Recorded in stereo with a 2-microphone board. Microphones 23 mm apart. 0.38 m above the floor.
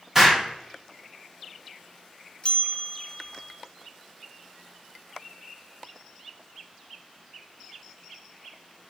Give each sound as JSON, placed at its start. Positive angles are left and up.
{"t": 0.1, "sound": "an explosion", "side_deg": -20, "distance_m": 1.1}
{"t": 2.4, "sound": "a bell", "side_deg": 40, "distance_m": 0.5}